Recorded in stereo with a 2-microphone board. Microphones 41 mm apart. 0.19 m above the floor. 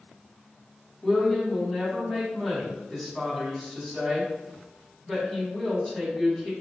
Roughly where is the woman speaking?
Centre.